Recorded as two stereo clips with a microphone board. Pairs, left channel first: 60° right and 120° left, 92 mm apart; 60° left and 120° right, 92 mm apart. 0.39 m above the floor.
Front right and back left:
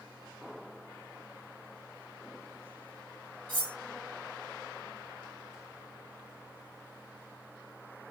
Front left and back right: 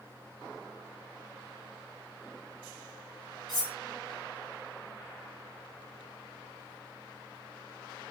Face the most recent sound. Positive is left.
turn(degrees=95)